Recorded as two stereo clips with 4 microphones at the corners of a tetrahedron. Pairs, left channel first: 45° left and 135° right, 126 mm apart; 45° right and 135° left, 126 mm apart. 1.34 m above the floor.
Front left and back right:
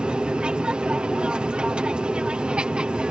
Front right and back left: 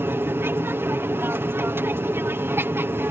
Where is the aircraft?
160° left.